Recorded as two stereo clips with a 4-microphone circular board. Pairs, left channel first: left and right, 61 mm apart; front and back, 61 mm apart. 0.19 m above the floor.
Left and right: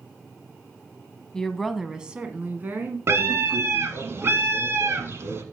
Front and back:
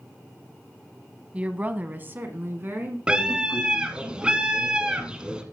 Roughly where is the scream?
Behind right.